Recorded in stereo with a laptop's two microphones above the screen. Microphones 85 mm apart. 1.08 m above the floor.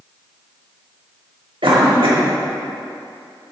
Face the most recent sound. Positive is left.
turn(degrees=-85)